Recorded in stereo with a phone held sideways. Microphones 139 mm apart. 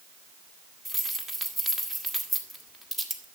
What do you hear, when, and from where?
0.8 s keys jangling: centre (ahead or behind), 1.6 m